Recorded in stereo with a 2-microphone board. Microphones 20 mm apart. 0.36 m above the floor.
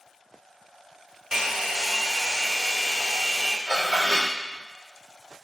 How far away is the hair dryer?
About 0.6 m.